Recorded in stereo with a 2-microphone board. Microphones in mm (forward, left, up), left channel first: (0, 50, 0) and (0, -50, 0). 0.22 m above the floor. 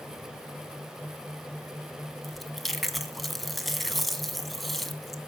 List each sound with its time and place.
2.2 s chewing: centre (ahead or behind), 1.6 m